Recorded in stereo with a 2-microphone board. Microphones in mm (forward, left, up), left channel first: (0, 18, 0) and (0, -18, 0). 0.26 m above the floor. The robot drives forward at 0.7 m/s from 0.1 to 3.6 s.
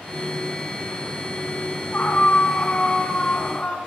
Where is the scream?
50° left (ahead or behind), 1.9 m; by 3.8 s 35° left (ahead or behind), 2.5 m.